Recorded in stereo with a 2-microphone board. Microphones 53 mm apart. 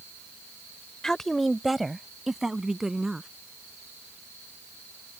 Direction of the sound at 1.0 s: 10° left (ahead or behind).